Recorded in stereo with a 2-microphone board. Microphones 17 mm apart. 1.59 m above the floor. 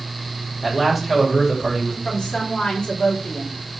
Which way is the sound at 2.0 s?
65° left (ahead or behind).